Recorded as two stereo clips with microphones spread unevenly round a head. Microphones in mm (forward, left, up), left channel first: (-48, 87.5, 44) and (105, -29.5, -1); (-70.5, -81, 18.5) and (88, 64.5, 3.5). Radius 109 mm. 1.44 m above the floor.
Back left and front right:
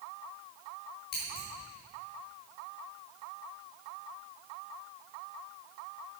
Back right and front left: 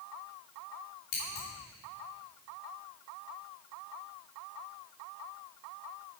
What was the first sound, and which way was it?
Scissors, 170° right.